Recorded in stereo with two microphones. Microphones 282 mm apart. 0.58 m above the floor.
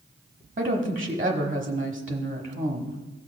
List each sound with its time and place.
0.6 s a woman speaking: 25° right (ahead or behind), 1.0 m